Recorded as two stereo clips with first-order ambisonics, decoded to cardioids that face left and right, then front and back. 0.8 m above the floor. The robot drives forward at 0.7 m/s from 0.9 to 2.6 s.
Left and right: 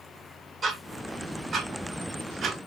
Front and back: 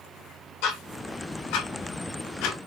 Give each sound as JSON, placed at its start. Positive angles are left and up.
{"t": 0.6, "sound": "ticking", "azimuth_deg": -20, "distance_m": 2.5}